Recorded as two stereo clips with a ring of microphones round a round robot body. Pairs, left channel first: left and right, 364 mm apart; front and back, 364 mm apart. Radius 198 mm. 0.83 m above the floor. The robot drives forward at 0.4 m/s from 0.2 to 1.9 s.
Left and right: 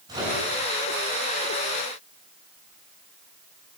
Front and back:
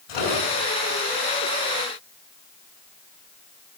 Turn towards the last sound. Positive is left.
turn(degrees=-10)